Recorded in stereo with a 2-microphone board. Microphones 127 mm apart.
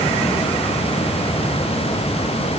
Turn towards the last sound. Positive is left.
No sound to turn to.